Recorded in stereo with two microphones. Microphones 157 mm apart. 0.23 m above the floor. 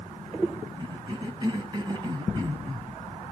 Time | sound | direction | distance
0.8 | a cough | 25° right (ahead or behind) | 1.6 m